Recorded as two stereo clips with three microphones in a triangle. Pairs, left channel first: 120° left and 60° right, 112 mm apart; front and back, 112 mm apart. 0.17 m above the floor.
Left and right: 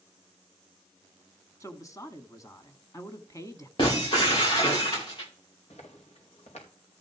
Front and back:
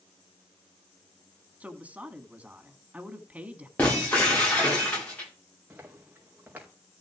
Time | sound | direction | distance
1.6 | a woman speaking | 115° left | 1.4 m
3.8 | breaking glass | 75° left | 9 m
5.7 | footsteps | 105° left | 4.5 m